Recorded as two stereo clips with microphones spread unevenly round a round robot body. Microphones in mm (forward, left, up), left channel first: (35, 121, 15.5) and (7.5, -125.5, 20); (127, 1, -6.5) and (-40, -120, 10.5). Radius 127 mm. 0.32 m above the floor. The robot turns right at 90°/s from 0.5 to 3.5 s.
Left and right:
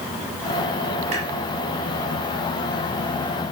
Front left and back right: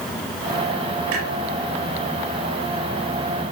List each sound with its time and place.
1.1 s a clunk: 165° right, 4.5 m; by 1.3 s 150° right, 4.5 m